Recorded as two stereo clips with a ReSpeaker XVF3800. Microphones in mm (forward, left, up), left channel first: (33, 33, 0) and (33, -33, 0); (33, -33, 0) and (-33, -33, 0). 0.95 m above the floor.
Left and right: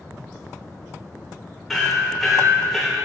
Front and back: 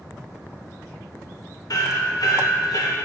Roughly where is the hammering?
Ahead.